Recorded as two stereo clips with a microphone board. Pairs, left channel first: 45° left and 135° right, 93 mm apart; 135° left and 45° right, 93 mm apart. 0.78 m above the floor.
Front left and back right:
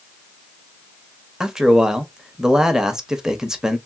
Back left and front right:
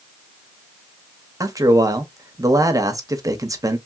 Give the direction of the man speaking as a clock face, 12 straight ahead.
2 o'clock.